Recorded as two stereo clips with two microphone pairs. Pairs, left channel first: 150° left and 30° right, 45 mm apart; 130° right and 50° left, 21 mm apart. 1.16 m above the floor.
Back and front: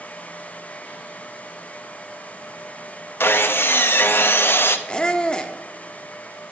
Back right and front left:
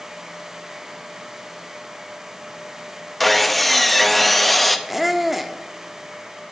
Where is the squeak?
125° left, 0.7 m.